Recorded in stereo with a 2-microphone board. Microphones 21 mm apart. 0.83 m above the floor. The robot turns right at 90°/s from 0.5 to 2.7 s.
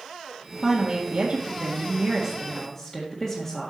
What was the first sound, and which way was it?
A woman speaking, 170° right.